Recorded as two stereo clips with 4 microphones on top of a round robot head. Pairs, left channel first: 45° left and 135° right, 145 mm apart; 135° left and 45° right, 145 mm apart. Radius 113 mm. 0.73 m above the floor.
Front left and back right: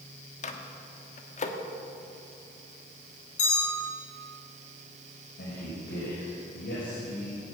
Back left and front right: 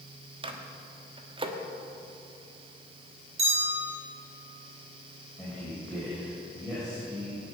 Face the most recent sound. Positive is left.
turn(degrees=50)